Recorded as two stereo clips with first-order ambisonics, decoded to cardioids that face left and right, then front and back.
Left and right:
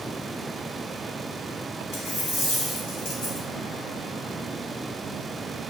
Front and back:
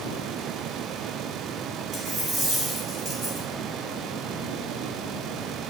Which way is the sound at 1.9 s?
115° left.